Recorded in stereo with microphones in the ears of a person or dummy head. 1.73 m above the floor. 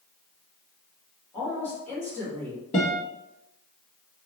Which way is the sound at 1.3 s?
10° left (ahead or behind).